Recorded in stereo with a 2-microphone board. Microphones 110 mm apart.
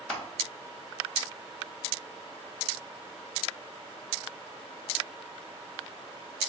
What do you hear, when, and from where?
0.1 s crushing: 15° left (ahead or behind), 1.3 m